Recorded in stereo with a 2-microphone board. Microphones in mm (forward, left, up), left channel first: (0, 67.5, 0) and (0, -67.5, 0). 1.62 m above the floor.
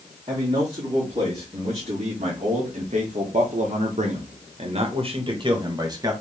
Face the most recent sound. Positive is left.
turn(degrees=-25)  # may be behind; listen again after turning